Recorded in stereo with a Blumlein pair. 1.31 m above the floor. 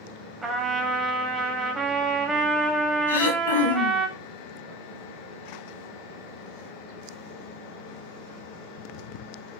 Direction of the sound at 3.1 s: 70° left.